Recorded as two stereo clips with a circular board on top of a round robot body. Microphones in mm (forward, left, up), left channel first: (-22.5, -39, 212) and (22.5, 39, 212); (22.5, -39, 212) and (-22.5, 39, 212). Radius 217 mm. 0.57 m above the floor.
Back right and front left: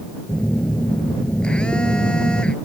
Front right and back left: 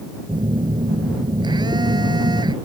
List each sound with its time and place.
0.3 s a phone buzzing: 160° left